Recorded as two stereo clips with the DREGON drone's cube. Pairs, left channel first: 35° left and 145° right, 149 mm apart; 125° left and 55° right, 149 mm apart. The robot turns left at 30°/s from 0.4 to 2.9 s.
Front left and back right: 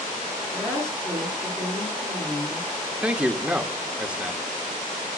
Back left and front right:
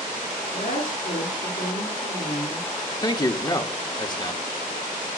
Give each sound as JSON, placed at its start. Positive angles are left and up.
{"t": 0.5, "sound": "a woman speaking", "azimuth_deg": 130, "distance_m": 9.0}
{"t": 3.0, "sound": "a man speaking", "azimuth_deg": 140, "distance_m": 1.0}